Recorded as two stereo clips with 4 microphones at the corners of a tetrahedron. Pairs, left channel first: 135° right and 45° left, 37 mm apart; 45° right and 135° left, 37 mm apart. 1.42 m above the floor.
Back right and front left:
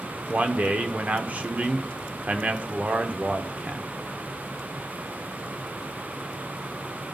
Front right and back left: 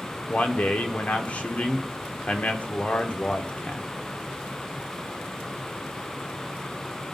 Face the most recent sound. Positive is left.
turn(degrees=0)